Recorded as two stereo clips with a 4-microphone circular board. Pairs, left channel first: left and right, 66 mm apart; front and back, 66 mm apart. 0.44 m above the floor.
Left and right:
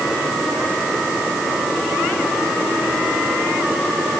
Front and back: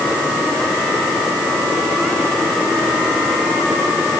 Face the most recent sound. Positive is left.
No sound to turn to.